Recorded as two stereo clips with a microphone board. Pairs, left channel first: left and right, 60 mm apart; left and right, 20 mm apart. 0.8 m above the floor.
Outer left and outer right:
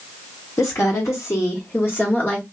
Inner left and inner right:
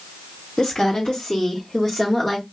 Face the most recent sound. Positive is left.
turn(degrees=30)  # may be behind; listen again after turning